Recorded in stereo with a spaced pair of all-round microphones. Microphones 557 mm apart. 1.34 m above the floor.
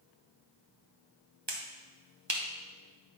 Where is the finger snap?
50° right (ahead or behind), 1.2 m.